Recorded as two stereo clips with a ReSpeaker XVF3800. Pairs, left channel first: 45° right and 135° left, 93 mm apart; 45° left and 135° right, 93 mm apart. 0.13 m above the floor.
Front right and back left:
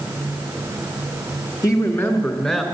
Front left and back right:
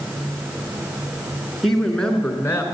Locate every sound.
1.6 s a woman speaking: 40° right, 1.6 m; by 2.6 s 30° left, 1.4 m